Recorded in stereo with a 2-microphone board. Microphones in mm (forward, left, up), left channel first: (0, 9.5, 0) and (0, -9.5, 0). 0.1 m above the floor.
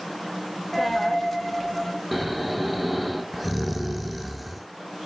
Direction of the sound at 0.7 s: 10° left (ahead or behind).